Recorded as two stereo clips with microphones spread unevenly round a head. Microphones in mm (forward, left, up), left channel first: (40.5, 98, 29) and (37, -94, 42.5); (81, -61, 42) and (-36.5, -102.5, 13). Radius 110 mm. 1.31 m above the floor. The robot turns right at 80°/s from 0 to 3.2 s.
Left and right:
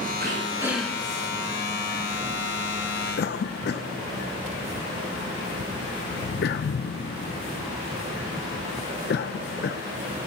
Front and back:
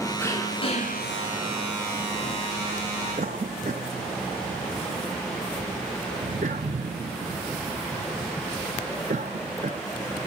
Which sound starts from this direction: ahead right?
Throat clearing, at 0.2 s.